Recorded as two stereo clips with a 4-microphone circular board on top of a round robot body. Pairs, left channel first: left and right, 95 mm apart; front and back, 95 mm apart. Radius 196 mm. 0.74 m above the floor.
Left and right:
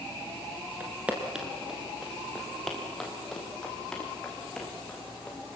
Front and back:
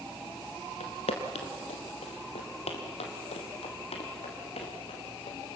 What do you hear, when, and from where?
0.8 s footsteps: 15° right, 1.1 m; by 5.6 s 10° left, 3.5 m